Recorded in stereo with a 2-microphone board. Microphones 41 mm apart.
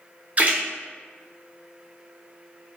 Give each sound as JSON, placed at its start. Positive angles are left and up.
{"t": 0.4, "sound": "a splash", "side_deg": -40, "distance_m": 0.7}